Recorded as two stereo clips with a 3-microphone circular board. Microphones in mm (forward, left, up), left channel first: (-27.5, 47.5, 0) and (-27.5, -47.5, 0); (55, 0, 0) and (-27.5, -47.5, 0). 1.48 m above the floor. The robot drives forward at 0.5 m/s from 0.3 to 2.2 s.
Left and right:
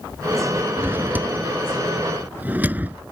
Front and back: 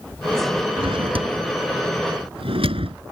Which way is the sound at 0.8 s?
160° right.